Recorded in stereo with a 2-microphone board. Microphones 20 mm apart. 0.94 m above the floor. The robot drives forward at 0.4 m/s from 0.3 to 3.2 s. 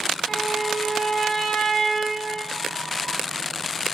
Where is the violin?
5° left (ahead or behind), 6 m.